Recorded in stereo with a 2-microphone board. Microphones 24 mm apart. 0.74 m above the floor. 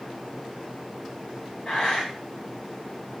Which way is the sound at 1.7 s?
35° left (ahead or behind).